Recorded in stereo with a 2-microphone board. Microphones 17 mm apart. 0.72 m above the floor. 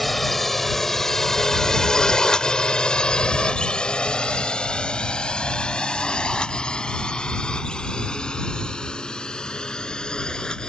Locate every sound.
0.0 s a drone: 10° left (ahead or behind); by 10.7 s 50° left (ahead or behind)